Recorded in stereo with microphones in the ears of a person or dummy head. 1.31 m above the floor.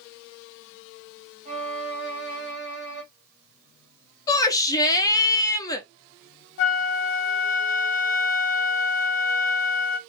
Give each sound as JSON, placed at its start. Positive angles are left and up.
{"t": 1.4, "sound": "a violin", "side_deg": -40, "distance_m": 1.1}
{"t": 4.3, "sound": "a shout", "side_deg": 15, "distance_m": 0.6}
{"t": 6.6, "sound": "a flute", "side_deg": 60, "distance_m": 0.6}